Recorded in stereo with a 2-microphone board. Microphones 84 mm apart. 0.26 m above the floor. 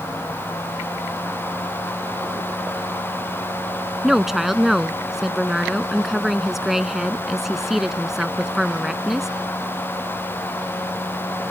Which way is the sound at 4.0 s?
5° right (ahead or behind).